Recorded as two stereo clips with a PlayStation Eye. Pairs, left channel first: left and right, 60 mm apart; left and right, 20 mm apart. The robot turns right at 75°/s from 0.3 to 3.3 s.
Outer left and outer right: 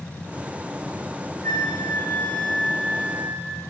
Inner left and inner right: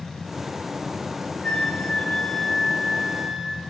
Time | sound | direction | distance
1.4 | a flute | 90° left | 0.5 m